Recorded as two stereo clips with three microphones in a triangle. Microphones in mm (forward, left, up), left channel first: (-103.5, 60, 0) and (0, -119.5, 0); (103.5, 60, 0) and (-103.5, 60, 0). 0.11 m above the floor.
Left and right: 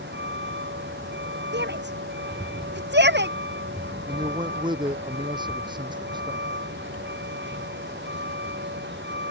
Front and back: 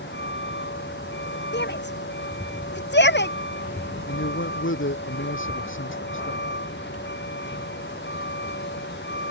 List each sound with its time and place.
0.0 s a vehicle: 30° right
1.5 s a shout: 30° right
4.1 s a man speaking: 10° left